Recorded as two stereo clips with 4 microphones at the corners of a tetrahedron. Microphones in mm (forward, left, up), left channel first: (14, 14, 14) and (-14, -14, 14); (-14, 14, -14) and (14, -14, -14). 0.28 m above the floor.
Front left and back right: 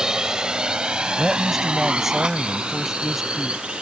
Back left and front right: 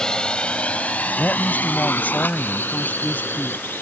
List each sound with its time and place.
0.0 s a drone: straight behind; by 3.8 s 160° left
1.2 s a woman speaking: 140° left